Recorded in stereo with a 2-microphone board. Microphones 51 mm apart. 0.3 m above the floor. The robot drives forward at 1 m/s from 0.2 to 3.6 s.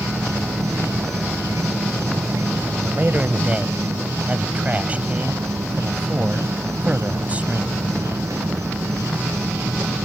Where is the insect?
80° right; by 10.1 s 85° right.